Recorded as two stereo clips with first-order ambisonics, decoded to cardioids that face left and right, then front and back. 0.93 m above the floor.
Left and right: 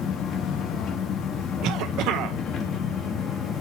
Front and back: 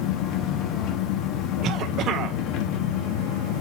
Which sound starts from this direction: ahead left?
An engine running, at 0.0 s.